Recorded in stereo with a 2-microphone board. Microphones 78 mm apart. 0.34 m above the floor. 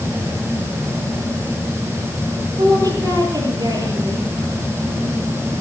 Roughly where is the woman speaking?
Right.